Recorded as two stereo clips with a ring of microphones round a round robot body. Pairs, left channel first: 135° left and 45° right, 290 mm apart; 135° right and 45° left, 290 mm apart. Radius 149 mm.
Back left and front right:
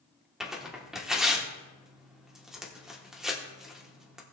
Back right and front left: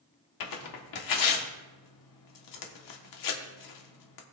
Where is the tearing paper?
135° right, 1.3 m.